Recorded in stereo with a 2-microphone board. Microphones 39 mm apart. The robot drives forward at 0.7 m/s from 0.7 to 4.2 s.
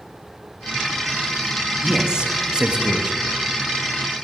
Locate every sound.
1.8 s a man speaking: 15° right (ahead or behind), 1.3 m; by 3.2 s 25° right (ahead or behind), 1.0 m